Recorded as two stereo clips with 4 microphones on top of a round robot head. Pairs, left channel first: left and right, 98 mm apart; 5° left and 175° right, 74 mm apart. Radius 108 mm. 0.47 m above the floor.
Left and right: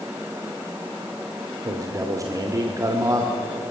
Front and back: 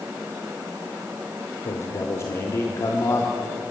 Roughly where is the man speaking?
Ahead right.